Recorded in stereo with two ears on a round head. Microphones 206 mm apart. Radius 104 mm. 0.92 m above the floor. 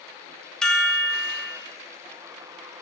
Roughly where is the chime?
Centre.